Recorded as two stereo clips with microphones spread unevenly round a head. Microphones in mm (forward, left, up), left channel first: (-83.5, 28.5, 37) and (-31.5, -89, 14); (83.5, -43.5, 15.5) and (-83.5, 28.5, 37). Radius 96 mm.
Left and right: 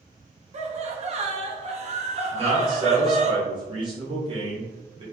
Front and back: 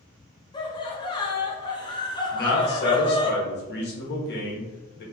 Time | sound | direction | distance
0.5 | laughter | 85° right | 1.0 m
2.3 | a man speaking | 15° right | 1.3 m